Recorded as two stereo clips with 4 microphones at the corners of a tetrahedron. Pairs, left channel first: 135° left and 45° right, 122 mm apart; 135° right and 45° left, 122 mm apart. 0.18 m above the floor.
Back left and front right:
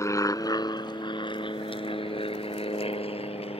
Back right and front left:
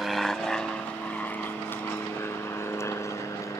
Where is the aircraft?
130° left; by 3.6 s 165° left.